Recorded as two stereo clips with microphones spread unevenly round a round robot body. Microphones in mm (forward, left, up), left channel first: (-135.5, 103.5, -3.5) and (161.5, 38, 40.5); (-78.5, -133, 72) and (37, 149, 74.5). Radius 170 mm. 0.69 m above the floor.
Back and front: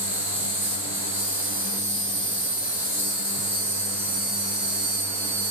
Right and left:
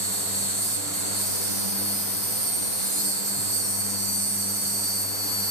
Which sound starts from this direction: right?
An insect, at 0.0 s.